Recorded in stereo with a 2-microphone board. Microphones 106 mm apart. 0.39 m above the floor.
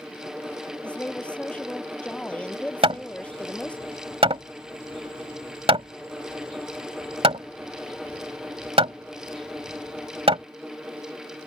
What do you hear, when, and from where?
0.8 s a woman speaking: 10° left (ahead or behind)
2.8 s hammering: 60° right (ahead or behind)